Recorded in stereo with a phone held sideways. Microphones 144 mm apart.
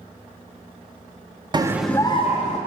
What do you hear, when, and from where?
1.5 s a scream: 30° right (ahead or behind), 0.6 m; by 2.6 s 55° left (ahead or behind), 0.9 m